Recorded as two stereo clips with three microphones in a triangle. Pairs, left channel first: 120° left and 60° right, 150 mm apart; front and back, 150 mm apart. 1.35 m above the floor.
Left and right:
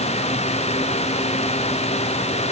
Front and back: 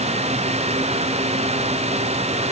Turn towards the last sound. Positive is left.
No sound to turn to.